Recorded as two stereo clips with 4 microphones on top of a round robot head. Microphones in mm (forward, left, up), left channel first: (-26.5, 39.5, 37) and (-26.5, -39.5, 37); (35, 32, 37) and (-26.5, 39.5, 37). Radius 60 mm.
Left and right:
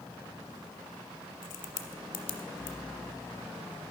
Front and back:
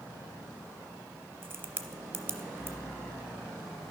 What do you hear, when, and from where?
1.4 s a crack: 115° left, 0.6 m